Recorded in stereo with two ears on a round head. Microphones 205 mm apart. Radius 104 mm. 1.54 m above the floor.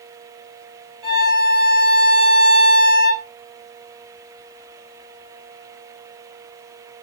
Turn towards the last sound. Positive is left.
turn(degrees=-20)  # may be behind; listen again after turning